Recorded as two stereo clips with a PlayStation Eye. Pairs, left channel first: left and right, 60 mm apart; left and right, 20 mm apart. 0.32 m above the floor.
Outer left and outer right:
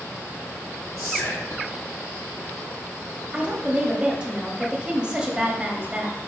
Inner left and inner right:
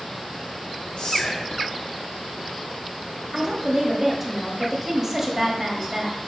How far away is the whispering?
About 3 m.